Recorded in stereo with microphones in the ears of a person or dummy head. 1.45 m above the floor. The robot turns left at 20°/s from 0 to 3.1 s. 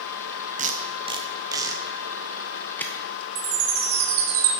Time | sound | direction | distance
0.6 | tape being pulled | 35° right (ahead or behind) | 0.7 m
3.4 | a chime | 75° right (ahead or behind) | 4.5 m